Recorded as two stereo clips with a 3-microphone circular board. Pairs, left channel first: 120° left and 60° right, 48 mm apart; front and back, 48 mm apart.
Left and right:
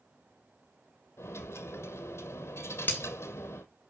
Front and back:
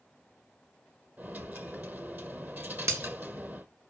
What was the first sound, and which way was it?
A dropped coin, 130° left.